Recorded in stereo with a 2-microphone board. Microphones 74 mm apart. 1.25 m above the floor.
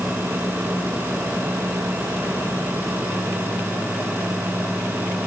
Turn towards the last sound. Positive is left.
No sound to turn to.